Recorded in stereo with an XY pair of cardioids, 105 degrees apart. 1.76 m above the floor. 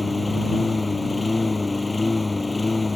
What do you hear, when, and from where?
0.0 s a lawn mower: 15° left